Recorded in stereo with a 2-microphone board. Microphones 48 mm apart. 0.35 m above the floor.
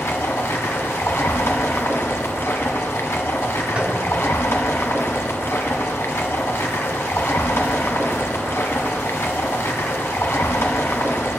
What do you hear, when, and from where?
0.0 s running water: 60° left (ahead or behind), 1.4 m
3.8 s tapping: 25° right (ahead or behind), 2.5 m